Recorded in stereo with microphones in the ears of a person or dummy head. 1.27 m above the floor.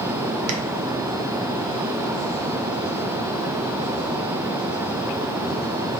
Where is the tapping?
85° right, 0.6 m.